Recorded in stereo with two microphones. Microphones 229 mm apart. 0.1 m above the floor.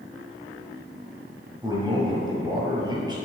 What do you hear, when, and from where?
1.6 s a man speaking: 20° right (ahead or behind), 1.8 m